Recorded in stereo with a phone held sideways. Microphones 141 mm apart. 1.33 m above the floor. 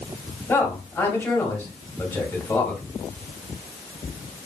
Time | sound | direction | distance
0.5 | a man speaking | 15° left (ahead or behind) | 1.8 m